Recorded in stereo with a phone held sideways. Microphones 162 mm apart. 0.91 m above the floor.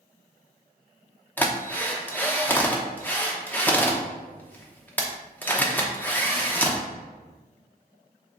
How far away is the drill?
About 0.8 m.